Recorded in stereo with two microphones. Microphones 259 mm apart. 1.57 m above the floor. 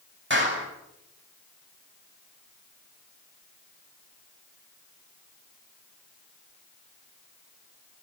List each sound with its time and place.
0.3 s a clap: 45° right (ahead or behind), 8.5 m